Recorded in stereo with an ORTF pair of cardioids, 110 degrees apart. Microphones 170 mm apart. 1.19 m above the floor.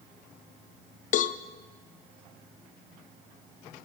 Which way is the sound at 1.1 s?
50° left.